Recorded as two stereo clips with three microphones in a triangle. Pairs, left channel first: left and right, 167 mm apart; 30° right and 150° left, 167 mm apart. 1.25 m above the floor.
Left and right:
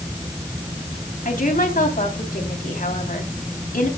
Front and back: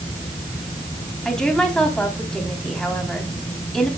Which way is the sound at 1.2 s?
55° left.